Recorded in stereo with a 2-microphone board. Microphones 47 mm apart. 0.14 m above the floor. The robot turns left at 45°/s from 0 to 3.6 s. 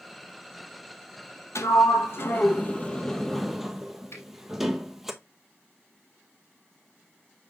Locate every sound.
1.6 s a sliding door: 75° left (ahead or behind), 0.9 m; by 5.1 s 10° right (ahead or behind), 0.9 m
4.1 s a finger snap: 70° left (ahead or behind), 3 m